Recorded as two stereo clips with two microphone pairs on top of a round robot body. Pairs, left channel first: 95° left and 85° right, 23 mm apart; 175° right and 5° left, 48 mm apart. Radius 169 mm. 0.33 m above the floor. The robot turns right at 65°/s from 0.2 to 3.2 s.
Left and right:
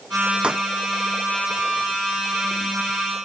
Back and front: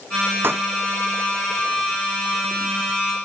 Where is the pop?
35° right; by 0.7 s 20° right.